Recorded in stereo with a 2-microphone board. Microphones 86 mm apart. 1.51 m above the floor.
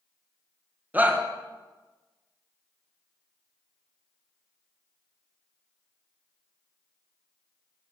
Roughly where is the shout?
Centre.